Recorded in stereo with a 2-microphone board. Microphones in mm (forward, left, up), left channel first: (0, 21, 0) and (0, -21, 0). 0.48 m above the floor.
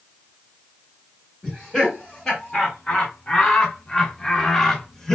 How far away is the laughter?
About 1.7 m.